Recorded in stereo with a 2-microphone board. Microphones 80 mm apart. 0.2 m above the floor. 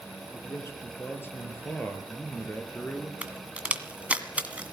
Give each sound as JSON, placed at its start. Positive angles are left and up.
{"t": 0.3, "sound": "a man speaking", "side_deg": 35, "distance_m": 4.5}
{"t": 3.2, "sound": "a crack", "side_deg": -15, "distance_m": 1.8}